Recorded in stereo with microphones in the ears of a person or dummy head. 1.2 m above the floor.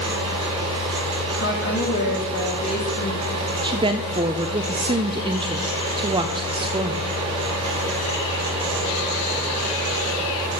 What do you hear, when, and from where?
0.0 s a fan: 30° right (ahead or behind), 4.5 m
1.3 s a woman speaking: 60° left (ahead or behind), 3 m
3.6 s a woman speaking: 20° right (ahead or behind), 0.6 m